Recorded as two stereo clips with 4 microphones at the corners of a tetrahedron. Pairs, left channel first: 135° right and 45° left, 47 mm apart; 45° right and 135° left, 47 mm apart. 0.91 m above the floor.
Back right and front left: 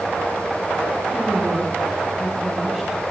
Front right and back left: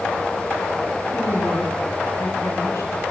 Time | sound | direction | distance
1.1 | a woman speaking | 35° right | 8.5 m